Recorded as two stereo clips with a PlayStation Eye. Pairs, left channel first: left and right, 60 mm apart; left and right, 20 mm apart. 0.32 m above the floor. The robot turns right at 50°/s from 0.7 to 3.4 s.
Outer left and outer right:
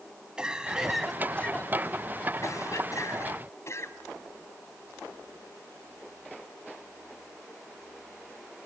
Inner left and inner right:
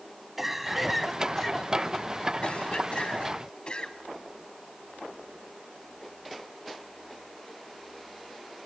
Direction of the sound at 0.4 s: 15° right.